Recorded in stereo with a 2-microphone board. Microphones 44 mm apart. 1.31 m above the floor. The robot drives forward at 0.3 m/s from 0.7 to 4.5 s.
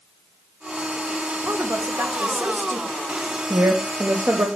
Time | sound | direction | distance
1.4 | a woman speaking | 70° right (ahead or behind) | 1.2 m
3.5 | a woman speaking | 60° right (ahead or behind) | 1.0 m